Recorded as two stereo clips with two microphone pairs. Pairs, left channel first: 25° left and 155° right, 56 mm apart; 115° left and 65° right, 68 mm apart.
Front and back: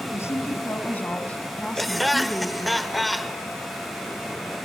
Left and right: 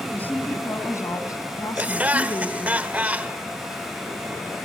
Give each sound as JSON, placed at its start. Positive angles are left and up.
{"t": 0.1, "sound": "a woman speaking", "azimuth_deg": 50, "distance_m": 3.0}
{"t": 1.8, "sound": "laughter", "azimuth_deg": -65, "distance_m": 0.9}